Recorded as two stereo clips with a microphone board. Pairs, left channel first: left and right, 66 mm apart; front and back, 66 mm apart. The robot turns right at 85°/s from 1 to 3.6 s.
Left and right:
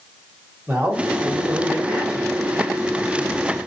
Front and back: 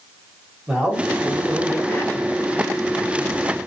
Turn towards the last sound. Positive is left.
turn(degrees=100)